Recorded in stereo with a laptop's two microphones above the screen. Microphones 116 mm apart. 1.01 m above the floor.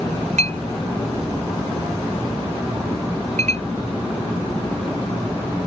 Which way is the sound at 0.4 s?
75° right (ahead or behind).